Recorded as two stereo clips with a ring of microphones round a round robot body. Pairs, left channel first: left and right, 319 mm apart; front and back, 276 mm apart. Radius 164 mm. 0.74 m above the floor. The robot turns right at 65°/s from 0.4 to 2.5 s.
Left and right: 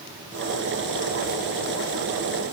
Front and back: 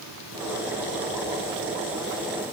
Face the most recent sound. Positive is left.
No sound to turn to.